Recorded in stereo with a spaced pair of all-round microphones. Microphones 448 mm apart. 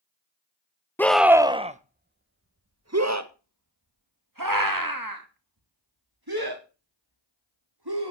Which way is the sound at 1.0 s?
5° left (ahead or behind).